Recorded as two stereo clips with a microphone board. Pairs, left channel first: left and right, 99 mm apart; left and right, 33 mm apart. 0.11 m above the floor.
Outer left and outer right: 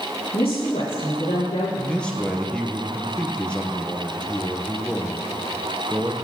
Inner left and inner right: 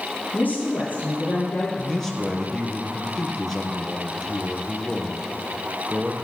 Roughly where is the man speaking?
Centre.